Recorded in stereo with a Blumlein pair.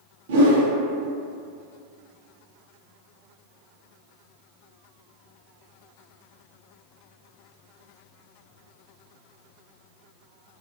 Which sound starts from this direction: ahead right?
A whoosh, at 0.3 s.